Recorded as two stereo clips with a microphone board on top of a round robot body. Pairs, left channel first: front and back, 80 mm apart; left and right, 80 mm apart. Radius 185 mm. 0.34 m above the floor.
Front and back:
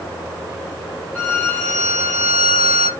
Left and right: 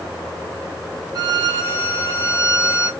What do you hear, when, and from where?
1.1 s a violin: 70° right, 1.2 m